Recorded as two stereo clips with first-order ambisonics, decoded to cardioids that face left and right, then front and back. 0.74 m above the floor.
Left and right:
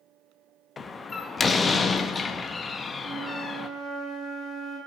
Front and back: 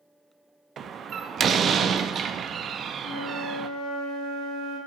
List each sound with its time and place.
0.8 s a door slam: 150° left, 0.6 m
3.0 s a flute: 30° right, 5.5 m